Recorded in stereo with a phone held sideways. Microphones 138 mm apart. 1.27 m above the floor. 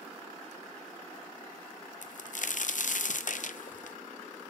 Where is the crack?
65° left (ahead or behind), 0.6 m.